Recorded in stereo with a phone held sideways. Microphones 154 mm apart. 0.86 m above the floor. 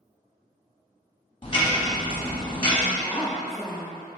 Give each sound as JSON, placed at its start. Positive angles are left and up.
{"t": 1.4, "sound": "ticking", "side_deg": 35, "distance_m": 0.8}
{"t": 2.9, "sound": "a woman speaking", "side_deg": 0, "distance_m": 1.1}